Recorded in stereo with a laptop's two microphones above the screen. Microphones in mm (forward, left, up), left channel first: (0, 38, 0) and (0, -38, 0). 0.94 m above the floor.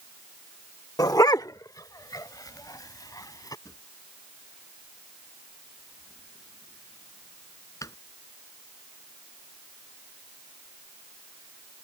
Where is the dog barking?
55° left (ahead or behind).